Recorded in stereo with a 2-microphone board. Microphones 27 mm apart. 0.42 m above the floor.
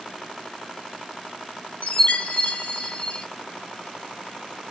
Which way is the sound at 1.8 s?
80° left.